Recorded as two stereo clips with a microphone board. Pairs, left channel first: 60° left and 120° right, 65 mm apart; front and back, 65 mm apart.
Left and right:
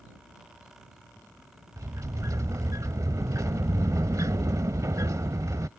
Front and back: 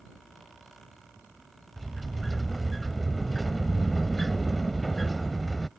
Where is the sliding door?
90° right.